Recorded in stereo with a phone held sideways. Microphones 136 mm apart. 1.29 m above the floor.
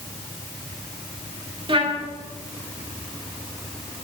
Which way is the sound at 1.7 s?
40° right (ahead or behind).